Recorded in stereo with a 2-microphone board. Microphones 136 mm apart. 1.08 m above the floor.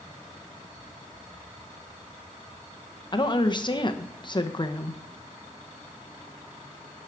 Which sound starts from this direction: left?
A woman speaking, at 3.1 s.